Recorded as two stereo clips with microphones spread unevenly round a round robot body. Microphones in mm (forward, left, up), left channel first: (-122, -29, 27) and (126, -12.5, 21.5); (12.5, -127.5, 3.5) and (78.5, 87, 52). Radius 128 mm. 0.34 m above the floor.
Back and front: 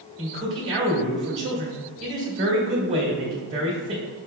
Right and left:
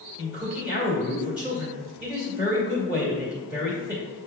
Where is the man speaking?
25° right, 1.7 m.